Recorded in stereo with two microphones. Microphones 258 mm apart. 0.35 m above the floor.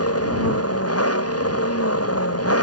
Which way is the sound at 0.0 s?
65° left (ahead or behind).